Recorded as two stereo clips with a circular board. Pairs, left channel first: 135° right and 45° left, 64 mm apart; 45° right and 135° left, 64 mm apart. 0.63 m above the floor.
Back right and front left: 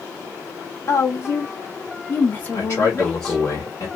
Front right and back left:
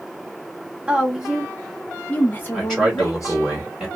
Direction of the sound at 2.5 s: 130° right.